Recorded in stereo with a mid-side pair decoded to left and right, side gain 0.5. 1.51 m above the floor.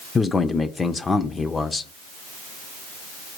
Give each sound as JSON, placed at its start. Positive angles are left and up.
{"t": 0.1, "sound": "a man speaking", "azimuth_deg": 30, "distance_m": 0.5}